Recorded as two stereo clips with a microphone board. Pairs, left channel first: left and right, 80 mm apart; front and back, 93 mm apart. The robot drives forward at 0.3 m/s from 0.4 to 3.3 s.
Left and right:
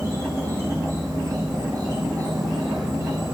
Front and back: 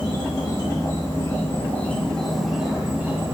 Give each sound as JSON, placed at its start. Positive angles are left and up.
{"t": 0.0, "sound": "an insect", "azimuth_deg": -35, "distance_m": 0.8}